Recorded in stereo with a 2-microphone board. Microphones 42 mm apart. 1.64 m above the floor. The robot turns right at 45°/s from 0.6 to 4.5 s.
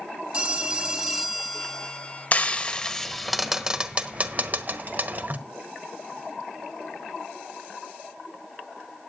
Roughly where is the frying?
Left.